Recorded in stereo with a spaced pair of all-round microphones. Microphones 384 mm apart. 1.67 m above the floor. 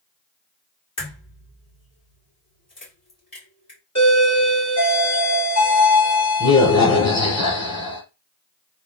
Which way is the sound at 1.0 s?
55° left (ahead or behind).